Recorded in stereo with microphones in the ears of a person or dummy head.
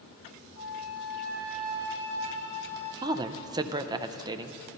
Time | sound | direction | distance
0.6 | a flute | 60° left (ahead or behind) | 6.5 m
3.0 | a woman speaking | 20° right (ahead or behind) | 0.5 m